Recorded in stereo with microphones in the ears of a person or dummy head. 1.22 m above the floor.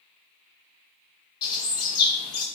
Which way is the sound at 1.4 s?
45° left (ahead or behind).